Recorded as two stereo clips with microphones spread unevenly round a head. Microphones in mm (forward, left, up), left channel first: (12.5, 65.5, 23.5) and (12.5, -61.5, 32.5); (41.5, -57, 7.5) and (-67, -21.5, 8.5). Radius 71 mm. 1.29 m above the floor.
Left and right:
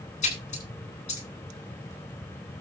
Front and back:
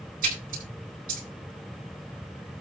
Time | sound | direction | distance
0.2 | a splash | 130° left | 7.5 m